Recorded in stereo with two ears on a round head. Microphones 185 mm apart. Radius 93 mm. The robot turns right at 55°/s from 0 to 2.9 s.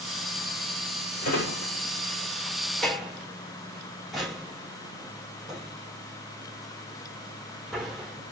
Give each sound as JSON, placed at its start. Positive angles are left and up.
{"t": 1.2, "sound": "a drawer", "side_deg": 80, "distance_m": 2.5}